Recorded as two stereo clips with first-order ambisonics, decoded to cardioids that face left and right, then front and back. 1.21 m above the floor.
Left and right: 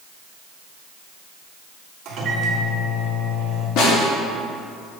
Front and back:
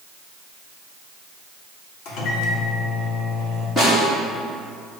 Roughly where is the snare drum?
Left.